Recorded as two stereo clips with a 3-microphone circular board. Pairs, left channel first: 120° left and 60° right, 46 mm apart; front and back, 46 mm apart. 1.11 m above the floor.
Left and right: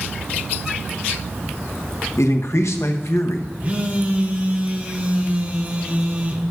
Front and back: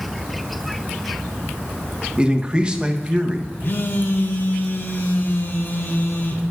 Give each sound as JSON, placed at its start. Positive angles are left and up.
{"t": 2.2, "sound": "a man speaking", "azimuth_deg": 110, "distance_m": 0.8}
{"t": 3.6, "sound": "a phone buzzing", "azimuth_deg": -15, "distance_m": 0.8}